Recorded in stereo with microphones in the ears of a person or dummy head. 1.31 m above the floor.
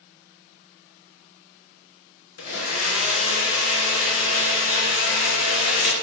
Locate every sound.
2.4 s a blender: 70° left (ahead or behind), 0.6 m